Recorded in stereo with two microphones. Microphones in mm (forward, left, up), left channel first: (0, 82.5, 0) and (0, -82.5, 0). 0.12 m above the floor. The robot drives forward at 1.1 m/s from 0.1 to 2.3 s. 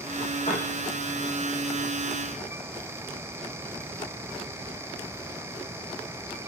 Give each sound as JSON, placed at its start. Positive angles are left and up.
{"t": 0.5, "sound": "a piano", "side_deg": 40, "distance_m": 6.0}